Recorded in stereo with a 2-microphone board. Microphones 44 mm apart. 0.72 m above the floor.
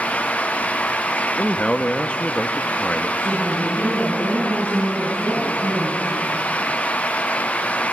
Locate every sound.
1.4 s a man speaking: 30° left (ahead or behind), 0.9 m
3.2 s a woman speaking: 65° right (ahead or behind), 7 m